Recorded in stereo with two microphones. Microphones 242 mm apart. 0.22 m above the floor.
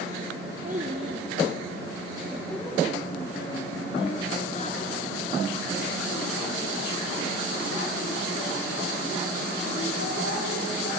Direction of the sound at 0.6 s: 35° right (ahead or behind).